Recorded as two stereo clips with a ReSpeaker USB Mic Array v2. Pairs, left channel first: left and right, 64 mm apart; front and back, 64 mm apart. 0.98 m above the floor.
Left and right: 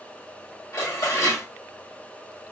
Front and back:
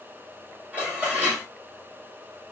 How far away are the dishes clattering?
About 1.3 m.